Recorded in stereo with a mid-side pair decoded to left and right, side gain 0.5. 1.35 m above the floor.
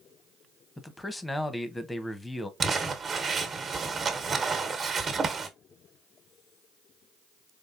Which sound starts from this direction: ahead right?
Crumpling, at 2.6 s.